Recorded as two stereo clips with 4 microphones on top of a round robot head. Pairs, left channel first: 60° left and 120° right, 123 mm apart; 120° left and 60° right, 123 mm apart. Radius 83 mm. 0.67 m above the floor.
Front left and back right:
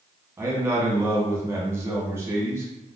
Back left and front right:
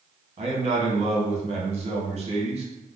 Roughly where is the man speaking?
Ahead right.